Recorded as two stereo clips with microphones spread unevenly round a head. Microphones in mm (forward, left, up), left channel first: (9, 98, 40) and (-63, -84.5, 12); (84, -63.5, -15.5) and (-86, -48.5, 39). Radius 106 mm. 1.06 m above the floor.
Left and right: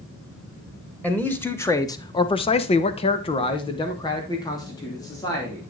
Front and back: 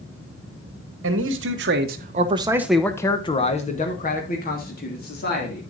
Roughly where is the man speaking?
Behind left.